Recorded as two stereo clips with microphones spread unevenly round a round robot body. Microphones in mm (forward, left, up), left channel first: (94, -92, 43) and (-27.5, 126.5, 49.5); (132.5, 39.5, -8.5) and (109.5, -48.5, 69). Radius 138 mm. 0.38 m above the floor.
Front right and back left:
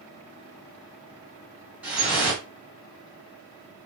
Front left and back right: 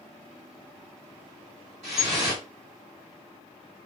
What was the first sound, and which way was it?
Dripping, 160° right.